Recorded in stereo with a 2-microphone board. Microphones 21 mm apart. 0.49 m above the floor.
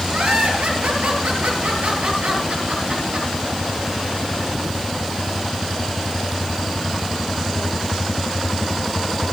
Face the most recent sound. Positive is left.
turn(degrees=-85)